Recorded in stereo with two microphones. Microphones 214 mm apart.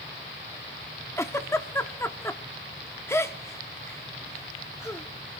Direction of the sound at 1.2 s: 15° left (ahead or behind).